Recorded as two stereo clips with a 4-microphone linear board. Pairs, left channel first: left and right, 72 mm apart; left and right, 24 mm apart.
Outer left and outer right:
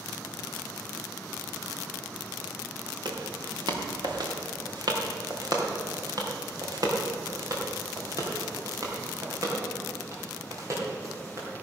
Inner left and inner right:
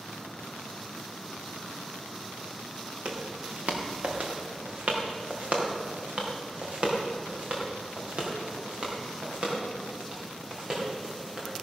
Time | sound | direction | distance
3.0 | footsteps | 80° right | 2.5 m